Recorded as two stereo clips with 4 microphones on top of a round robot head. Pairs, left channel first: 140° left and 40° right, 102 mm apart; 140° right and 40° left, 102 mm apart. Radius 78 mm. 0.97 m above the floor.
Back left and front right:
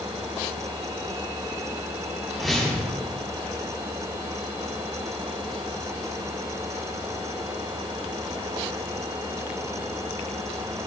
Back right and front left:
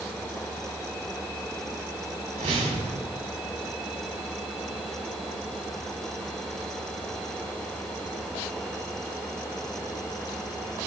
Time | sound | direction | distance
2.4 | a whoosh | 55° left | 3.5 m